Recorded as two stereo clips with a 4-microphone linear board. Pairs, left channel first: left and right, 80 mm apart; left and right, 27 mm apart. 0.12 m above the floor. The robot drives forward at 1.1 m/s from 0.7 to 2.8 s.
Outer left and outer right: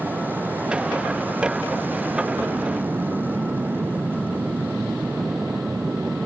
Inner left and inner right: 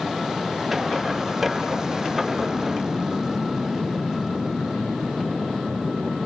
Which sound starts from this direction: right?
An aircraft, at 0.0 s.